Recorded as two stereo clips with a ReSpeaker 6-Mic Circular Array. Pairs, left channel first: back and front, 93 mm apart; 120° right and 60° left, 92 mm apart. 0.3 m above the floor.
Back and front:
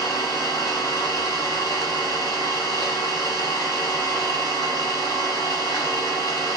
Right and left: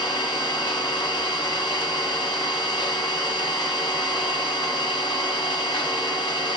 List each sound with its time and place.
0.0 s an engine running: 135° right, 1.4 m